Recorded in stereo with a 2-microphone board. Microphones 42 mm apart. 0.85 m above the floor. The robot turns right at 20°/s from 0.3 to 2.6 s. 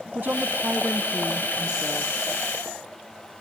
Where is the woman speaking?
50° right, 0.7 m; by 2.1 s 15° right, 0.7 m.